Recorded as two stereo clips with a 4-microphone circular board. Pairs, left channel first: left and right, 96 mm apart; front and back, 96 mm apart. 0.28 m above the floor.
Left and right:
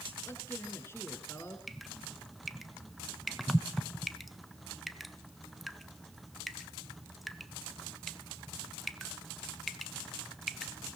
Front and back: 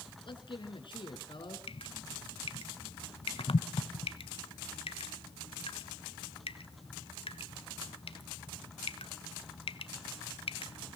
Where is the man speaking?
25° left, 3.5 m.